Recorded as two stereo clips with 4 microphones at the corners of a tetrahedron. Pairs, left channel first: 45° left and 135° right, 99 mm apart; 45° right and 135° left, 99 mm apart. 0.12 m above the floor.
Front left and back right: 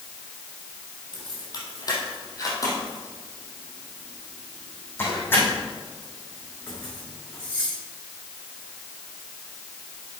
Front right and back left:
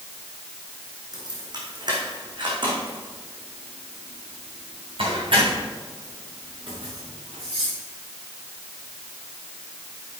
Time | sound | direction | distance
1.1 | keys jangling | 90° left | 3 m